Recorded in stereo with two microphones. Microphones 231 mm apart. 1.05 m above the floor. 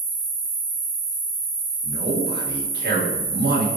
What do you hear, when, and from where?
0.0 s an insect: 55° left (ahead or behind), 2.0 m
1.8 s a man speaking: 45° right (ahead or behind), 0.9 m